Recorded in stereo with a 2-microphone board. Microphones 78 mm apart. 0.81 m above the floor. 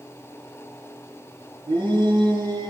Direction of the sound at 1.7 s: 85° right.